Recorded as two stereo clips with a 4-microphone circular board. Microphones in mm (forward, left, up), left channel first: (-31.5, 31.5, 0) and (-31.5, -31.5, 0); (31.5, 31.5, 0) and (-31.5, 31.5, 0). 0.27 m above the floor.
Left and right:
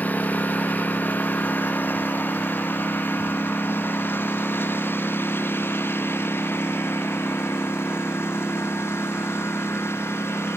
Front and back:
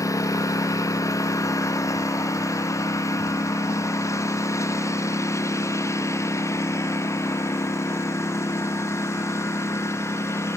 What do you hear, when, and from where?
0.0 s a lawn mower: 25° left; by 10.6 s 40° left